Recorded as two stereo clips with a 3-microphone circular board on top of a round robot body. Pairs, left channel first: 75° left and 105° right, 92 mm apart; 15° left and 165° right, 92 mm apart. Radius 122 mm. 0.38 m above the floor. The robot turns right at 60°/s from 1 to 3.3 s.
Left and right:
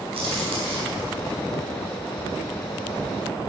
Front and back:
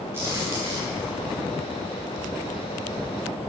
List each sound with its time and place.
0.1 s a crack: 100° right, 5.5 m; by 1.0 s 95° right, 5.5 m